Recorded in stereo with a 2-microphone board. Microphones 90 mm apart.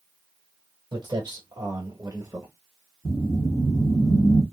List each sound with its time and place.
0.9 s footsteps: 60° right (ahead or behind), 1.6 m; by 2.5 s 30° right (ahead or behind), 1.0 m
3.0 s a whoosh: 25° left (ahead or behind), 1.3 m